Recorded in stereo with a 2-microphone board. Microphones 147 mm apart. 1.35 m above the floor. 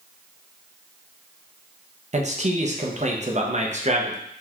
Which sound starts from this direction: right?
A man speaking, at 2.1 s.